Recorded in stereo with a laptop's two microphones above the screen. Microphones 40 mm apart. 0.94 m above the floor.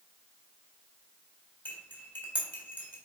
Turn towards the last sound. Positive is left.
turn(degrees=55)  # may be behind; listen again after turning